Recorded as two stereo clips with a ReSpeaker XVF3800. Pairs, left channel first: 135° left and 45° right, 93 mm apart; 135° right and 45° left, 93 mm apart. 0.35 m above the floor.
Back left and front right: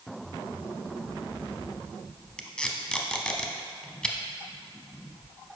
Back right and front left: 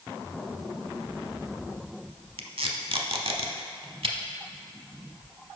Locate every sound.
2.4 s tape being pulled: 55° left, 0.6 m